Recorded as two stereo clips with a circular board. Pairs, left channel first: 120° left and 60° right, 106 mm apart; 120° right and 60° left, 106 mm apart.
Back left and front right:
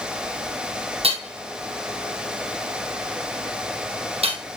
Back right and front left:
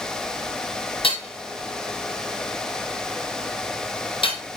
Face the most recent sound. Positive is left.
turn(degrees=-85)